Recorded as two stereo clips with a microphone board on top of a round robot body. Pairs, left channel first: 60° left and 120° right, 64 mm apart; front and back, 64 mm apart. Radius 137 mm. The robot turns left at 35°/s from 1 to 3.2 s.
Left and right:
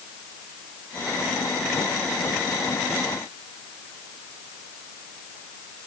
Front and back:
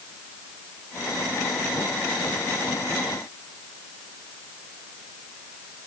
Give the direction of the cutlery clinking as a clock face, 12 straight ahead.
No cutlery clinking in this recording.